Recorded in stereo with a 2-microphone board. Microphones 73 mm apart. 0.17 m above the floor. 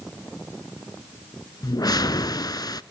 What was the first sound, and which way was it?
A whoosh, 70° left (ahead or behind).